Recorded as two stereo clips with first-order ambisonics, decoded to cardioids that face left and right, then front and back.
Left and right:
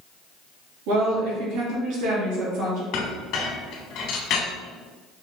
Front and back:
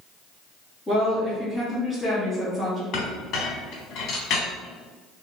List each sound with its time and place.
0.9 s a woman speaking: 85° right, 1.9 m
2.9 s a clink: 50° left, 1.2 m